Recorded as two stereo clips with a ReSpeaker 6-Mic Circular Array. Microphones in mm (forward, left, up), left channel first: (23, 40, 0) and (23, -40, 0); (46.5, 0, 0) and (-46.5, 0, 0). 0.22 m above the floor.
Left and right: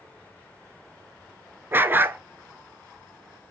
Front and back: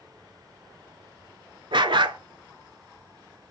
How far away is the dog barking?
About 0.7 m.